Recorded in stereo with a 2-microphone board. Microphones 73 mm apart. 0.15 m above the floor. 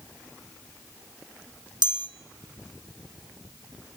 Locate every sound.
1.8 s a chime: 85° right, 1.4 m